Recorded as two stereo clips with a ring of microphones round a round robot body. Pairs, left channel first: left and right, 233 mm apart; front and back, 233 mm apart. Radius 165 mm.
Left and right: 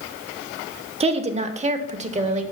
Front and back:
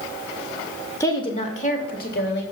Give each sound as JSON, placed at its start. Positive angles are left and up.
{"t": 1.0, "sound": "a woman speaking", "azimuth_deg": -65, "distance_m": 0.8}